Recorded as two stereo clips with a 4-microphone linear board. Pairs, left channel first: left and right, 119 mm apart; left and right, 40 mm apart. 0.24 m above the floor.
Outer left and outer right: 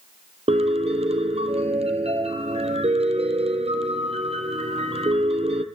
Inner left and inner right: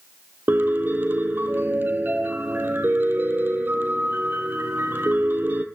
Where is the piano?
60° right (ahead or behind), 1.2 m.